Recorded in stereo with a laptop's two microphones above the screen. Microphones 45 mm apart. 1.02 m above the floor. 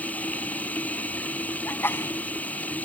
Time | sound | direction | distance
0.0 | running water | 35° left (ahead or behind) | ?
1.6 | a sneeze | 60° left (ahead or behind) | ?